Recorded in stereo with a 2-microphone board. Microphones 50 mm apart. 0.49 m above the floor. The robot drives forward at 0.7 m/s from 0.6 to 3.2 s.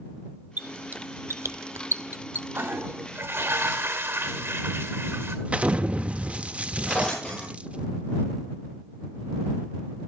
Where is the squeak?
30° right (ahead or behind), 0.9 m; by 2.5 s 40° right (ahead or behind), 0.8 m.